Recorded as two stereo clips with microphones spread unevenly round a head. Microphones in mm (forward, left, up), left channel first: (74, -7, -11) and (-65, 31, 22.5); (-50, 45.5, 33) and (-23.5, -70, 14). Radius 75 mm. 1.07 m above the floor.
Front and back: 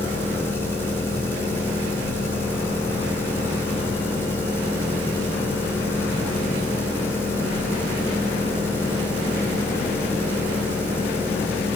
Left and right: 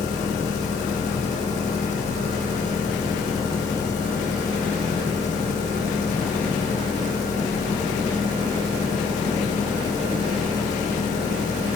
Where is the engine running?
60° left, 3 m.